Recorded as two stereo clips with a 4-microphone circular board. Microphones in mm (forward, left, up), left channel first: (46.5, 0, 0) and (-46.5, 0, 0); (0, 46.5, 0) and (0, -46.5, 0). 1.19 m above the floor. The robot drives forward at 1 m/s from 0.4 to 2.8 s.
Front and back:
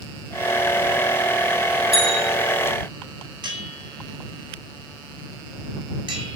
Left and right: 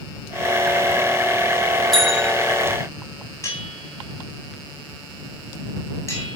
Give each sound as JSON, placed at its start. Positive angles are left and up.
{"t": 1.9, "sound": "a bell", "azimuth_deg": 175, "distance_m": 5.0}
{"t": 3.4, "sound": "a bell", "azimuth_deg": 150, "distance_m": 7.5}